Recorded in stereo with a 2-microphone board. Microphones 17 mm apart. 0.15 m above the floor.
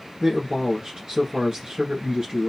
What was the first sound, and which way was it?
A man speaking, 45° right (ahead or behind).